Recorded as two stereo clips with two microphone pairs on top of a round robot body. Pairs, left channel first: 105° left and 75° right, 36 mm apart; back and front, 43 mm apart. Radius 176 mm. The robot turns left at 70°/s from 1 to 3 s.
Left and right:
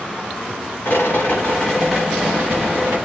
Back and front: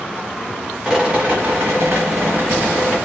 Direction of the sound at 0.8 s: 75° left.